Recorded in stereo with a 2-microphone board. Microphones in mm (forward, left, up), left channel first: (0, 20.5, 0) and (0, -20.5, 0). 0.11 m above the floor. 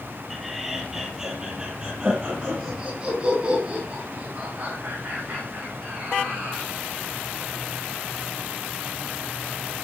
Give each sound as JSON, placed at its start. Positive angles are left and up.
{"t": 0.3, "sound": "laughter", "side_deg": 0, "distance_m": 3.5}